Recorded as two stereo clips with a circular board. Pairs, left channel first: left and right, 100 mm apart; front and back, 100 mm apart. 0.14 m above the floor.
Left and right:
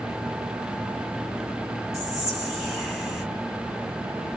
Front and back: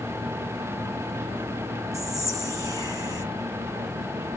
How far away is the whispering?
About 1.9 m.